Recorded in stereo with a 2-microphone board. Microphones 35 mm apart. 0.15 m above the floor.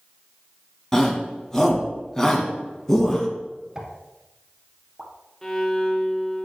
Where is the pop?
25° right (ahead or behind), 1.1 m.